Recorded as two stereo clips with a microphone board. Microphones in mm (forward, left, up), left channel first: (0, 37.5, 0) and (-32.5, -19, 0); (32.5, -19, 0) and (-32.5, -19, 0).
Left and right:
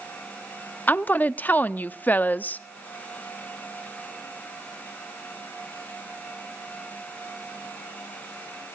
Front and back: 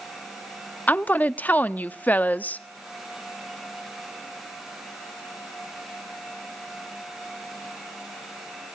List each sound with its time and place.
0.9 s a woman speaking: 30° left, 0.7 m